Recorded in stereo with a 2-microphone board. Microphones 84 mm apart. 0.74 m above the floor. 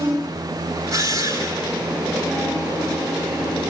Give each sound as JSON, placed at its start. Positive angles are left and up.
{"t": 0.9, "sound": "a drill", "side_deg": -45, "distance_m": 5.5}